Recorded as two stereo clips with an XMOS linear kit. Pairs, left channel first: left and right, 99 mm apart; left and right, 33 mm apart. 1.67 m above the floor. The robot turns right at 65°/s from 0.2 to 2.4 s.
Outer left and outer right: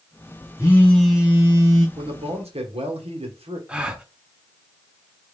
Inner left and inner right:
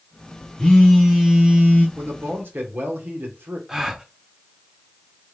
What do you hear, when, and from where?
0.6 s a phone buzzing: 150° left, 1.5 m; by 1.9 s 125° right, 1.5 m
2.0 s a man speaking: 65° right (ahead or behind), 1.2 m; by 3.6 s 85° right, 1.2 m
3.7 s a gasp: 10° right (ahead or behind), 0.6 m